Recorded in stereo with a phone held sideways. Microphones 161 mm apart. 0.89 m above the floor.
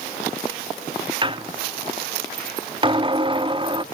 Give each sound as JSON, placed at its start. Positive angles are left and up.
{"t": 1.2, "sound": "a squeak", "side_deg": -30, "distance_m": 0.5}